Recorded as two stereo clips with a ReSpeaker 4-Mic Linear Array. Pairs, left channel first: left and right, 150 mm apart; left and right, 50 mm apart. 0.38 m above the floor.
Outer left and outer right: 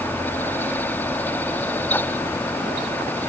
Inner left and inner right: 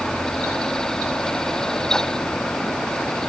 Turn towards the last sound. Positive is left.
No sound to turn to.